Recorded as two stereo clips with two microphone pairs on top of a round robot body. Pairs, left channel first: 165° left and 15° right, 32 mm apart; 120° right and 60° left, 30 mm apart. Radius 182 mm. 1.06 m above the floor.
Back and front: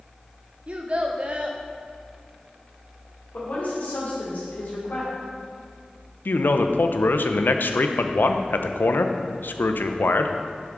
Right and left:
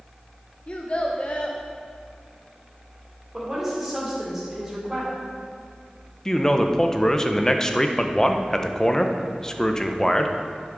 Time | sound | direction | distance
0.7 | a child speaking | 65° right | 0.5 m
3.3 | a woman speaking | 140° left | 3 m
6.2 | a man speaking | 165° left | 0.7 m